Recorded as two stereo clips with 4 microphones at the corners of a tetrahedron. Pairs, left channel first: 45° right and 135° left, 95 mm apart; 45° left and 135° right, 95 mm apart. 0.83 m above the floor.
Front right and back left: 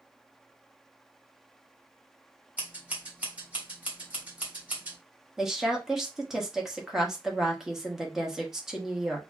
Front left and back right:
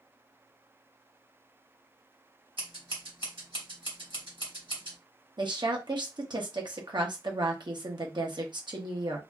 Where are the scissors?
150° right, 1.8 m.